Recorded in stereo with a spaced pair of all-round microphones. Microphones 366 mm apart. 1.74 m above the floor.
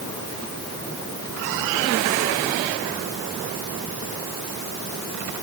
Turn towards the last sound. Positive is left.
No sound to turn to.